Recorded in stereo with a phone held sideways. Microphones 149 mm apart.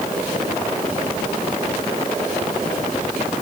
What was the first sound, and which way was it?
Only background noise.